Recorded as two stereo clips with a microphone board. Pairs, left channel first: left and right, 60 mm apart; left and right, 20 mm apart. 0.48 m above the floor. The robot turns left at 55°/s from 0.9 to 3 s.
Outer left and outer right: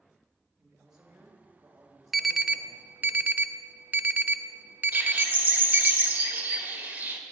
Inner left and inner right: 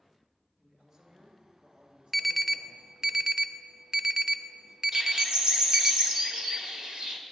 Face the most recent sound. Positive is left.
turn(degrees=-35)  # may be behind; listen again after turning